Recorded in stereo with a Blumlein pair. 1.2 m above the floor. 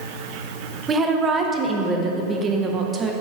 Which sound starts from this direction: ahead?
A woman speaking, at 0.9 s.